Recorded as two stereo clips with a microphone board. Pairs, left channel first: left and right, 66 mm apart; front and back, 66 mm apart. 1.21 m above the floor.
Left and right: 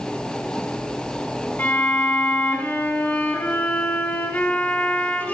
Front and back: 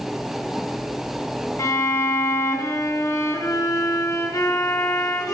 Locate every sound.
1.6 s a violin: 25° left, 2.5 m